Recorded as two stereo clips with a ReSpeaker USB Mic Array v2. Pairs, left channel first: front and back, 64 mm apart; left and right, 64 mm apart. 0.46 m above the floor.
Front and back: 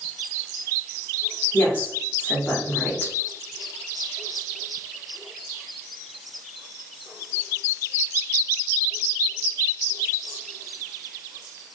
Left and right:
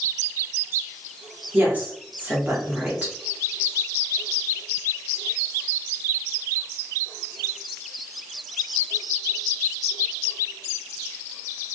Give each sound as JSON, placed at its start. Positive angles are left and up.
{"t": 1.5, "sound": "a woman speaking", "azimuth_deg": -45, "distance_m": 1.0}